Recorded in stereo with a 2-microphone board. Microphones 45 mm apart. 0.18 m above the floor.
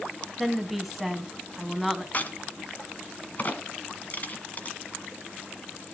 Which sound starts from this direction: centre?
A woman speaking, at 0.4 s.